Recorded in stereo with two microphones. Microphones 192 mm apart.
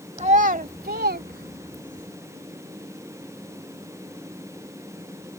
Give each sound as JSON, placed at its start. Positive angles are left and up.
{"t": 0.2, "sound": "a child speaking", "side_deg": -35}